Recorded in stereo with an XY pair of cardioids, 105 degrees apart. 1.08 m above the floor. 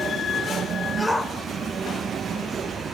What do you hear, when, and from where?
1.0 s a shout: straight ahead, 3.5 m